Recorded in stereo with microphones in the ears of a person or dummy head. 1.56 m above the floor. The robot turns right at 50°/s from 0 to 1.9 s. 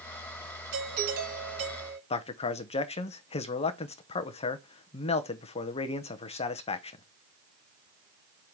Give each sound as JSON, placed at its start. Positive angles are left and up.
{"t": 0.7, "sound": "a doorbell", "azimuth_deg": -75, "distance_m": 3.5}
{"t": 2.1, "sound": "a man speaking", "side_deg": 35, "distance_m": 0.9}